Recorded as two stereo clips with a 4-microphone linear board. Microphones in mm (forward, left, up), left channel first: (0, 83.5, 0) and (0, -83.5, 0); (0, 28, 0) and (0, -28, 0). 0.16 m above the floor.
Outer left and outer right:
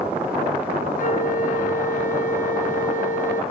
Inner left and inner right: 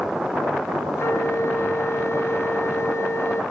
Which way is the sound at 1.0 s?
55° left (ahead or behind).